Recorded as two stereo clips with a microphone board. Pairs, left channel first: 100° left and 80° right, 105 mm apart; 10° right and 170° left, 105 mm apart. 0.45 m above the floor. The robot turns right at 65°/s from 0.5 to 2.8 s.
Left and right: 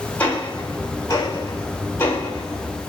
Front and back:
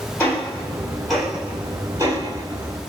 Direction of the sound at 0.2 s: 40° left.